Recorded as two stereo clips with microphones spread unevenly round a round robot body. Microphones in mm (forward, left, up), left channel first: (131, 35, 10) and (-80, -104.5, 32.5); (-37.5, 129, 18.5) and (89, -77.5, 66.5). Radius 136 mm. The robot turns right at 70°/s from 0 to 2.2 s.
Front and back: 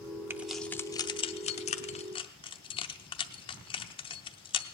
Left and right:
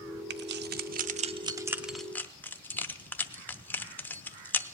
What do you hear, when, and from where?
0.3 s keys jangling: 65° right, 0.6 m; by 4.8 s 70° left, 0.6 m